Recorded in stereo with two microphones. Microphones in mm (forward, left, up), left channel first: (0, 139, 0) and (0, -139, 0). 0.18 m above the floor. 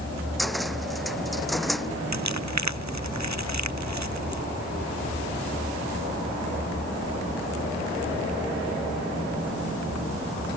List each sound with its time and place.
0.4 s a cupboard door: centre (ahead or behind)
2.1 s crumpling: 75° right (ahead or behind)